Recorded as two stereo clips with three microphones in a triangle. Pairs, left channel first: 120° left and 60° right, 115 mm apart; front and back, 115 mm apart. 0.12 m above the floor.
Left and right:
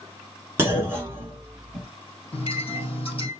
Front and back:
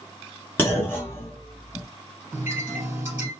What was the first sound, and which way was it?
A clunk, 35° right.